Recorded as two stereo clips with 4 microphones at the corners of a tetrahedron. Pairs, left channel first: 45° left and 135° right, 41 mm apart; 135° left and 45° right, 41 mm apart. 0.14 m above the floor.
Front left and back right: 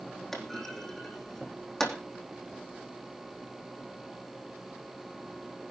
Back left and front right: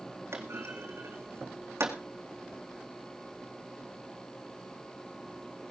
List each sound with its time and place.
0.3 s a clunk: 35° right, 3.5 m